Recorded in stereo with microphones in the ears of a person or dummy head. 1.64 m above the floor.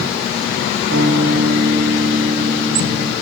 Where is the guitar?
55° right (ahead or behind), 1.2 m.